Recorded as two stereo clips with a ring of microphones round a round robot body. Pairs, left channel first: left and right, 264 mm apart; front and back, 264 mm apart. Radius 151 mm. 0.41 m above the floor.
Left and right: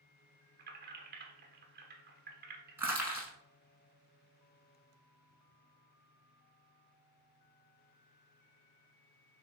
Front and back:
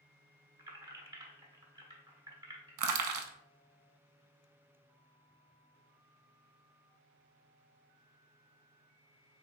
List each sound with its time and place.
0.6 s keys jangling: 115° right, 1.0 m
2.8 s crushing: 175° right, 0.7 m